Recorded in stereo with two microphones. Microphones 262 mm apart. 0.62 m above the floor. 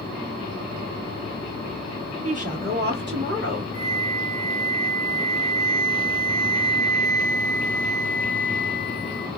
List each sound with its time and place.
2.2 s a woman speaking: 25° right (ahead or behind), 1.3 m; by 3.6 s 45° right (ahead or behind), 1.7 m
3.7 s a flute: 5° right (ahead or behind), 1.4 m